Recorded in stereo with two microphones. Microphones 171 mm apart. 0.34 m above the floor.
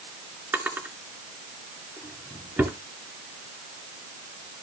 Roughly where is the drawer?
Centre.